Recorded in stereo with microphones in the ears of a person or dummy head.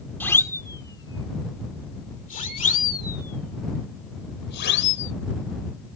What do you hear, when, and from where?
0.2 s a siren: 10° left (ahead or behind); by 5.1 s 60° left (ahead or behind)